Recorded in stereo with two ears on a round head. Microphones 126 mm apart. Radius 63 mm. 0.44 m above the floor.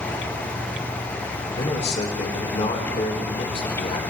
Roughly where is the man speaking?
Left.